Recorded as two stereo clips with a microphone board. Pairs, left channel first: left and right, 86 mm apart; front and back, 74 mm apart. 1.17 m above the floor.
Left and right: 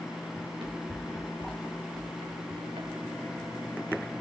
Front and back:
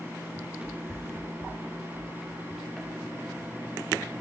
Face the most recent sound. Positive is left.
turn(degrees=-80)